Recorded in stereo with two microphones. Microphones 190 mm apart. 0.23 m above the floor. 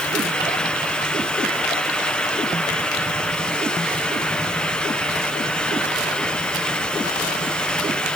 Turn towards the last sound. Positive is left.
No sound to turn to.